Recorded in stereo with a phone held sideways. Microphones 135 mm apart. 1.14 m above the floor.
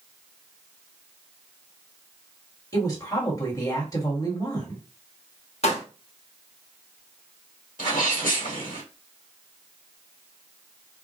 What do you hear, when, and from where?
2.7 s a woman speaking: 25° left (ahead or behind), 1.5 m
5.6 s a pop: 50° left (ahead or behind), 0.7 m
7.8 s a sneeze: 85° left, 1.1 m